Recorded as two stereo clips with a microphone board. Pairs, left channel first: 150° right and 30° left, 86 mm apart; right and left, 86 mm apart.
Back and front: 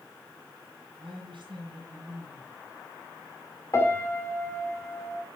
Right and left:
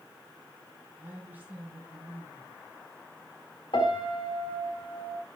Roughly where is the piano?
Right.